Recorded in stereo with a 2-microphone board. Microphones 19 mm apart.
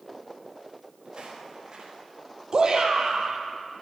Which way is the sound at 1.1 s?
40° right (ahead or behind).